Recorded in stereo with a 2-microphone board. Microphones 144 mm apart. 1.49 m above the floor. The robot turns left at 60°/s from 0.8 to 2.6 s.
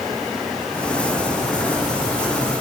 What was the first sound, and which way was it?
Only background noise.